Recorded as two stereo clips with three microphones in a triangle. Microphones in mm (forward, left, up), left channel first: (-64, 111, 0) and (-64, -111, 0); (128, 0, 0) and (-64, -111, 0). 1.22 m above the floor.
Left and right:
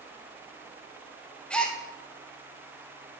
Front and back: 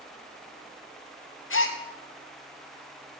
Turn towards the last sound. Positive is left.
turn(degrees=5)